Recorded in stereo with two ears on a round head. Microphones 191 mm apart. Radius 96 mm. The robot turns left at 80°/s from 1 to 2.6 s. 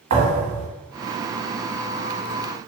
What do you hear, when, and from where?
0.1 s a thud: 65° right (ahead or behind), 1.4 m